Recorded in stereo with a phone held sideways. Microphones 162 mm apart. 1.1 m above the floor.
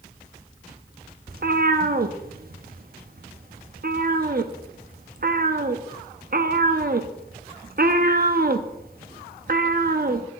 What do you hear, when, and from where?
1.3 s a cat meowing: 60° right (ahead or behind), 0.7 m